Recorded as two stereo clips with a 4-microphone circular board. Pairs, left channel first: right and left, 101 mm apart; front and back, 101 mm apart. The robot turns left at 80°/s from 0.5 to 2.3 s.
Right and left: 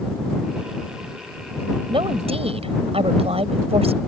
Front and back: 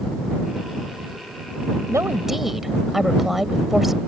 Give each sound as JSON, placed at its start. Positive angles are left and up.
{"t": 1.9, "sound": "a woman speaking", "azimuth_deg": 125}